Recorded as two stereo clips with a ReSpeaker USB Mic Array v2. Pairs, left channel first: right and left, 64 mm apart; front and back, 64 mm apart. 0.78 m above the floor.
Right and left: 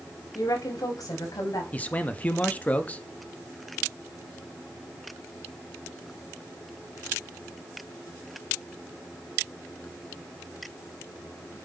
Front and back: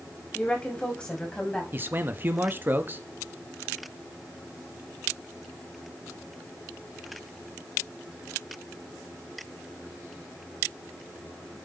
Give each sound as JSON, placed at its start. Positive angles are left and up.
{"t": 0.3, "sound": "a woman speaking", "azimuth_deg": -75, "distance_m": 5.0}
{"t": 1.7, "sound": "a man speaking", "azimuth_deg": -145, "distance_m": 1.1}